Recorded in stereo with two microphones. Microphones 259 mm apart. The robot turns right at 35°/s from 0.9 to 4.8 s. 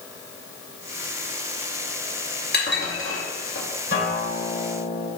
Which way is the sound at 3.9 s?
125° left.